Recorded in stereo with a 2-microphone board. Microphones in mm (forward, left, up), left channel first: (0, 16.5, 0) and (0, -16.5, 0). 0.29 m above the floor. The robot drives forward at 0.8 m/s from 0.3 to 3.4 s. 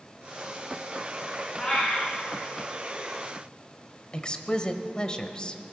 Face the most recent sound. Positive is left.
turn(degrees=25)  # may be behind; listen again after turning